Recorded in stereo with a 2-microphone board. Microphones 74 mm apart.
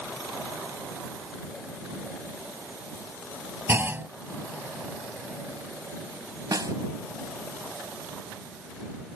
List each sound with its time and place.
3.7 s a clunk: 30° right (ahead or behind)
6.5 s a snare drum: 55° right (ahead or behind)